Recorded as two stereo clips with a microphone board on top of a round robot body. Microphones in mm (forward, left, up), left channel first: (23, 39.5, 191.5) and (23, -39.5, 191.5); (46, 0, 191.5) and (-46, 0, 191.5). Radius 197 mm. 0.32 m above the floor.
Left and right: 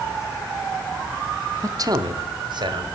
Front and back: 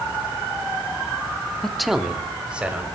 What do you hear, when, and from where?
1.6 s a man speaking: 80° right, 1.0 m; by 2.9 s 105° right, 2.5 m